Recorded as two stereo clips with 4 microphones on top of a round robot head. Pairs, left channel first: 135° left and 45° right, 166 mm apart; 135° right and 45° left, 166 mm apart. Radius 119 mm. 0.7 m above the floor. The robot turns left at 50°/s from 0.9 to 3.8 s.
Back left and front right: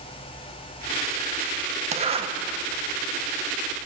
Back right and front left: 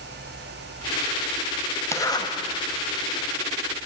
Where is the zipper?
65° right, 1.1 m; by 2.3 s 85° right, 1.1 m.